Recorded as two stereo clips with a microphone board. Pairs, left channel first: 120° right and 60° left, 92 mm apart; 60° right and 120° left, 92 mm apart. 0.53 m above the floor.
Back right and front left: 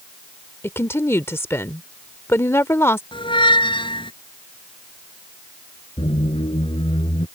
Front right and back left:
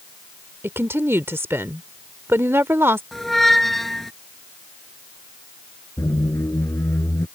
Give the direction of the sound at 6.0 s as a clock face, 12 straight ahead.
4 o'clock.